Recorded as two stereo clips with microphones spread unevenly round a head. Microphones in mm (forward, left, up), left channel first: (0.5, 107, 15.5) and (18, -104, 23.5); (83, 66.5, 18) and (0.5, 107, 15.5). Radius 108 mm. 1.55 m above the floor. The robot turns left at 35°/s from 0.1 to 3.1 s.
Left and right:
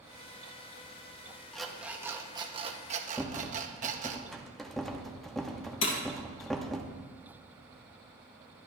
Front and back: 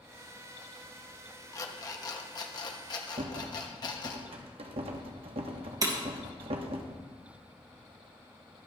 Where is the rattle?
175° right, 1.0 m.